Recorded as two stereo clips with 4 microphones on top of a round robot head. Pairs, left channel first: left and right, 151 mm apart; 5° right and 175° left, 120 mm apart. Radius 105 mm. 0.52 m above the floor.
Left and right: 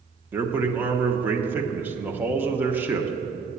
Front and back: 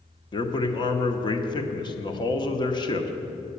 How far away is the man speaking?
About 0.9 m.